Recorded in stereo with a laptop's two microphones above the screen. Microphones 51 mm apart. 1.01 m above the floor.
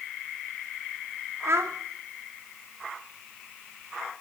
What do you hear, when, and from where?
1.4 s a child speaking: 70° right (ahead or behind), 1.1 m